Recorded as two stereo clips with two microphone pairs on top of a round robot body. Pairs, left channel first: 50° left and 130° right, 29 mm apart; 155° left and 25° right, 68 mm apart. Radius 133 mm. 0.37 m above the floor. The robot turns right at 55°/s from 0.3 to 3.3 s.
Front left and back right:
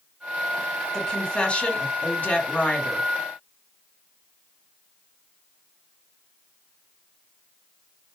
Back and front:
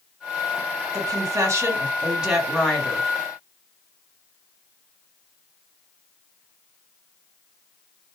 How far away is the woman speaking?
About 2.5 m.